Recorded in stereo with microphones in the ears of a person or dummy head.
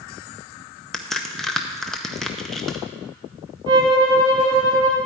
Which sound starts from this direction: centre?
A crack, at 0.9 s.